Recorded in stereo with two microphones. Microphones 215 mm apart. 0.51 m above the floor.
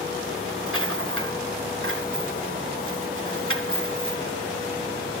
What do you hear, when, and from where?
0.7 s a rattle: 75° right (ahead or behind), 1.6 m